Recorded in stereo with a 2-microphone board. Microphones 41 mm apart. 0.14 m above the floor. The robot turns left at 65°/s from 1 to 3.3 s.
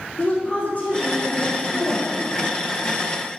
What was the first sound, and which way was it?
A woman speaking, 135° left.